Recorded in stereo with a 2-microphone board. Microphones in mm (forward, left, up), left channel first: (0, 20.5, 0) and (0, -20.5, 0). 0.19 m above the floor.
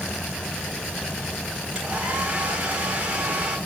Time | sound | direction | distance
1.8 | a hair dryer | 25° right (ahead or behind) | 8.5 m